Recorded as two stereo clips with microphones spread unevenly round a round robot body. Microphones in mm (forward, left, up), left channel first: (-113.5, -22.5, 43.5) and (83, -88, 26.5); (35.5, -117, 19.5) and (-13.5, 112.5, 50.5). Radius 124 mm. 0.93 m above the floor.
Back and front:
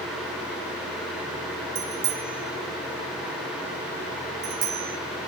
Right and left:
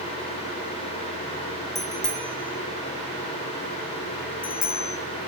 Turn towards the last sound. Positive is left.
turn(degrees=-30)